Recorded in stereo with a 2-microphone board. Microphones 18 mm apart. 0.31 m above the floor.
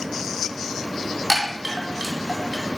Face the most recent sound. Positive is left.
turn(degrees=-10)  # may be behind; listen again after turning